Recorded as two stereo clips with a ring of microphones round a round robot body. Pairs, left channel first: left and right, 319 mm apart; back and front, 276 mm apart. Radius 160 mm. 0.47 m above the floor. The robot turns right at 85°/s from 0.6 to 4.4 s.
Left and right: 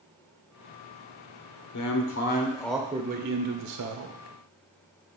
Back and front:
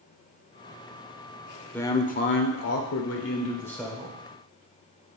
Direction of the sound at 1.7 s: 95° left.